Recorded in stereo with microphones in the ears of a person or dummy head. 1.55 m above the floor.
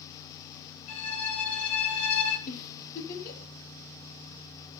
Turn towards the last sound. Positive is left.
turn(degrees=50)  # may be behind; listen again after turning